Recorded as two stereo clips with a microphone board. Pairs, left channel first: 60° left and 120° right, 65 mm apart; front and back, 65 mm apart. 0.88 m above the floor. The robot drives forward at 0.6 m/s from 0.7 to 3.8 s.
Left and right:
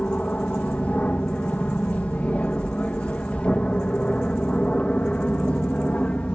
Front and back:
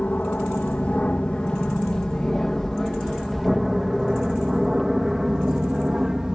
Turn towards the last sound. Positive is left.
turn(degrees=110)